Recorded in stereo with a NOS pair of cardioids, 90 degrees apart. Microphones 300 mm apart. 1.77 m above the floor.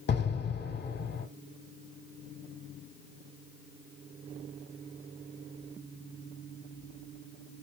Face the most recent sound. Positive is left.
turn(degrees=35)